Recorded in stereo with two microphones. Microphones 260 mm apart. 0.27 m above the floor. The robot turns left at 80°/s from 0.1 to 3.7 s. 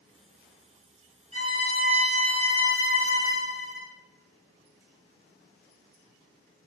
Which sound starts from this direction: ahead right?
A violin, at 1.3 s.